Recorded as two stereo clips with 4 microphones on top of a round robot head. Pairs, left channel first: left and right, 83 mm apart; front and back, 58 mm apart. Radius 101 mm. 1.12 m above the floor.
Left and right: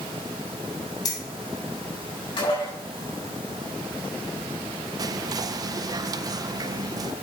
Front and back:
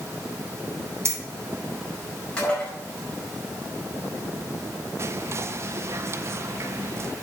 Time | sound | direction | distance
1.1 | keys jangling | 140° left | 1.6 m
2.4 | dishes clattering | 75° left | 5 m
5.0 | whispering | 135° right | 0.6 m